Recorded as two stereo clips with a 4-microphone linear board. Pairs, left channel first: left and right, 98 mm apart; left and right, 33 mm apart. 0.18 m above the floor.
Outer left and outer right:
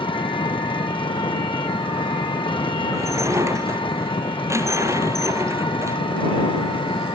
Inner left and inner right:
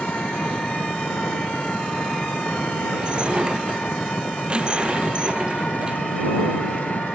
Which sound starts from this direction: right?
Dishes clattering, at 2.9 s.